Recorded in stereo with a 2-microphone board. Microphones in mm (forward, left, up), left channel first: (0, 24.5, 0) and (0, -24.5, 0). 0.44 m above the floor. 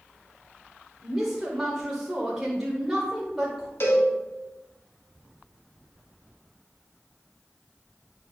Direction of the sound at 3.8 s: 60° left (ahead or behind).